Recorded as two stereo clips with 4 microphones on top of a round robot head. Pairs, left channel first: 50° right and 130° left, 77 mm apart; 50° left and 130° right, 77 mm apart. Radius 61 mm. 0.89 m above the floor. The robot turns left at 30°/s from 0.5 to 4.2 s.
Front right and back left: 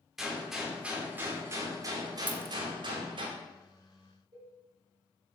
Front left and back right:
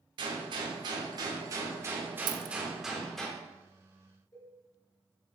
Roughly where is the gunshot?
Behind right.